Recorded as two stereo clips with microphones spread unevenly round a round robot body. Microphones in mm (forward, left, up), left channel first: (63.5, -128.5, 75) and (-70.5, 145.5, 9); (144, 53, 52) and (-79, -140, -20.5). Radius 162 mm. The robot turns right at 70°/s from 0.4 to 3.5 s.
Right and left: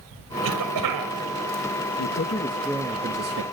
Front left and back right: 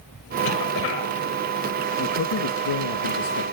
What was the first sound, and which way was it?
A cough, 65° left.